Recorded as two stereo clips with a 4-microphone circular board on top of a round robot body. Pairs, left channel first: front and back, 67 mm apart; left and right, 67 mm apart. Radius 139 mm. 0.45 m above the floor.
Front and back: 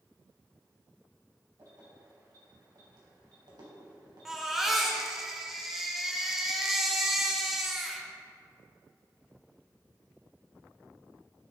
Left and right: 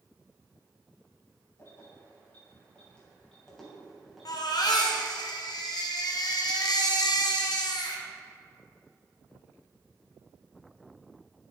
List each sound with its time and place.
1.6 s keys jangling: 140° left, 2.5 m; by 5.0 s 165° right, 3 m
4.2 s a baby crying: 95° left, 1.3 m